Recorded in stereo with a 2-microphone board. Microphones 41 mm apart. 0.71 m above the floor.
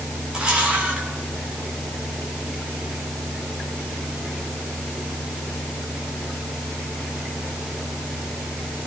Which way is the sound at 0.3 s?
25° right (ahead or behind).